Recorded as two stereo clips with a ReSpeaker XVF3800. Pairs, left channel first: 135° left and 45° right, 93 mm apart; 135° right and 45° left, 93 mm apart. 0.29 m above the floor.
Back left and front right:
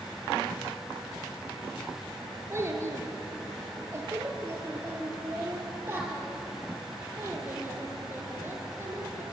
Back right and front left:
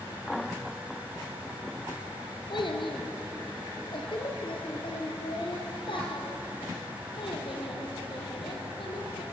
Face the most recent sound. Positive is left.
turn(degrees=-110)